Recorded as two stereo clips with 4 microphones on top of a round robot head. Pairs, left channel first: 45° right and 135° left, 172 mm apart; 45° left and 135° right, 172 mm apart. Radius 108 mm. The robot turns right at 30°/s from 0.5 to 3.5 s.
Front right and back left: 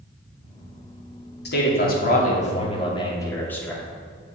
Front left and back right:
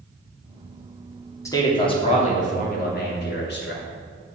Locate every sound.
1.4 s a man speaking: 25° right, 2.5 m; by 3.8 s 35° left, 2.5 m